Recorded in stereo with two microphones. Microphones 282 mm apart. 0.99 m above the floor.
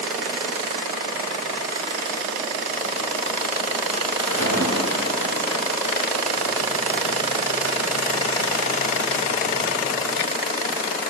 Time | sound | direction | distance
4.2 | a splash | 65° right (ahead or behind) | 1.9 m